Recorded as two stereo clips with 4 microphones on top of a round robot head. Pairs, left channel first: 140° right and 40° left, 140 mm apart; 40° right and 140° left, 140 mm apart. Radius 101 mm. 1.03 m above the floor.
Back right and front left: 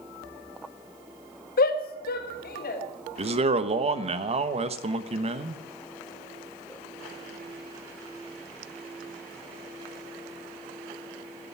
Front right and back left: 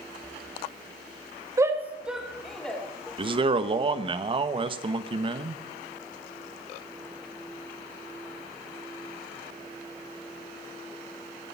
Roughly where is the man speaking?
Left.